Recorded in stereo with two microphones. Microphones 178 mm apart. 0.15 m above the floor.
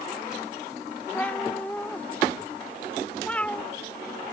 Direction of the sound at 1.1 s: 10° left (ahead or behind).